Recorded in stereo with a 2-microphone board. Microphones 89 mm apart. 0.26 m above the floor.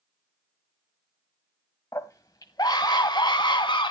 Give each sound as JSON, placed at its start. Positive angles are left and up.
{"t": 1.9, "sound": "a scream", "side_deg": 35, "distance_m": 1.2}